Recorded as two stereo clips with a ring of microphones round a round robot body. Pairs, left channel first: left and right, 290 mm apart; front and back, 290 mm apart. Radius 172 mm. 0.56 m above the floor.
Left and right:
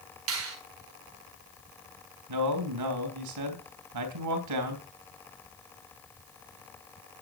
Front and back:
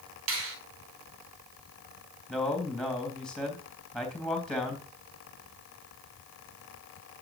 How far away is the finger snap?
About 3.5 m.